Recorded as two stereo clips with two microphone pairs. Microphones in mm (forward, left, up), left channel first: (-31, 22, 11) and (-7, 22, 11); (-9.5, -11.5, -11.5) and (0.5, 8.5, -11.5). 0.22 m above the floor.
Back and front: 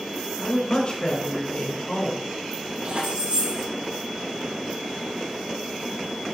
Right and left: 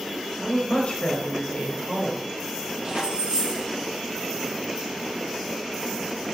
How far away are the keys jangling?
About 5 m.